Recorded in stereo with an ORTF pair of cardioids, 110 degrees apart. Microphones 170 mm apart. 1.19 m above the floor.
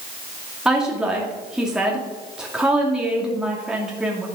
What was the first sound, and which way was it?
A woman speaking, 5° right.